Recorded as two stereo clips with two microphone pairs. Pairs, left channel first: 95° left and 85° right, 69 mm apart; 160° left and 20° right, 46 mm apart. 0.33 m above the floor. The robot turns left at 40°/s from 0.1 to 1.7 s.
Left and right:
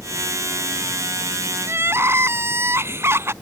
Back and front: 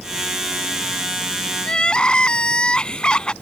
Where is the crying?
125° right; by 3.3 s 130° right.